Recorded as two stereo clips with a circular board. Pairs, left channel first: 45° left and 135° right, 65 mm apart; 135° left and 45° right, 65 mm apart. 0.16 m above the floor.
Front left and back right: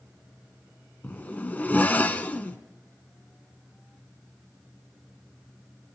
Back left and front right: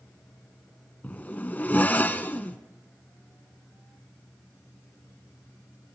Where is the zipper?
90° left, 0.8 m.